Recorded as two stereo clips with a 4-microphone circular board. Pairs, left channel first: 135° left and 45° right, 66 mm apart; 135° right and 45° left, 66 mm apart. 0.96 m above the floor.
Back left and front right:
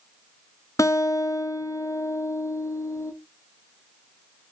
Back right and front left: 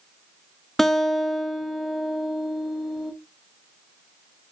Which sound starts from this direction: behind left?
A guitar, at 0.8 s.